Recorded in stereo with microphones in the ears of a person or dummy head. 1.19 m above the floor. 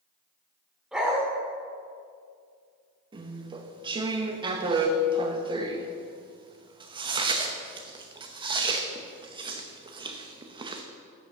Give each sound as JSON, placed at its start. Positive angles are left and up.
{"t": 0.9, "sound": "a dog barking", "side_deg": -5, "distance_m": 1.6}
{"t": 3.1, "sound": "chewing", "side_deg": -25, "distance_m": 0.7}